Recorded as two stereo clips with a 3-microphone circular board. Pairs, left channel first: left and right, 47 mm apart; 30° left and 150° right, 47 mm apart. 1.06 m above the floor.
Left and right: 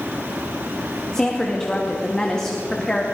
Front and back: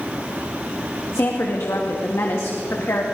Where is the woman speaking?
15° left, 1.7 m.